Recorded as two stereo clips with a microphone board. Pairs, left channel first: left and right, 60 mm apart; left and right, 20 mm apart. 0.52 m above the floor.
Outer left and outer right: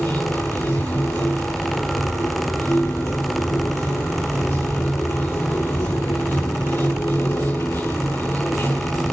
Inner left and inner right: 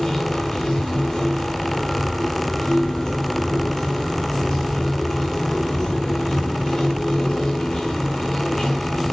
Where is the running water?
45° left (ahead or behind), 5 m.